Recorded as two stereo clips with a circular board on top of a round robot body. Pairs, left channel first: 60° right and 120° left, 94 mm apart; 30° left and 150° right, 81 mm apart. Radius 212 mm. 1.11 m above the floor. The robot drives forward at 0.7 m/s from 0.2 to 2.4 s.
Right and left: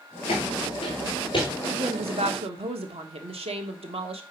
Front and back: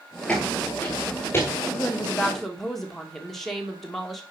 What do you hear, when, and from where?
0.3 s footsteps: 45° right, 1.5 m; by 1.5 s 20° right, 1.2 m
1.6 s a woman speaking: 95° left, 1.3 m; by 4.2 s 120° left, 1.4 m